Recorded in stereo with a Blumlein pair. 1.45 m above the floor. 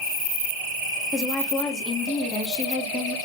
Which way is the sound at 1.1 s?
25° left.